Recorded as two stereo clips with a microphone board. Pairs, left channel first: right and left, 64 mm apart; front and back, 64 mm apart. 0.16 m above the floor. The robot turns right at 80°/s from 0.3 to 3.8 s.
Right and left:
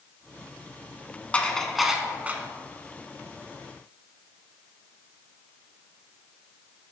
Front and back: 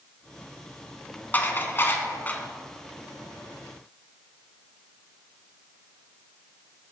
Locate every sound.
1.3 s dishes clattering: 35° right, 0.9 m; by 2.4 s 50° left, 0.9 m